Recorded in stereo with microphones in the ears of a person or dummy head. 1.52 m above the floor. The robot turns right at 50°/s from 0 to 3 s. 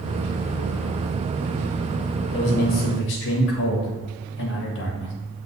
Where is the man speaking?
30° left, 1.7 m; by 5.1 s 65° left, 1.7 m.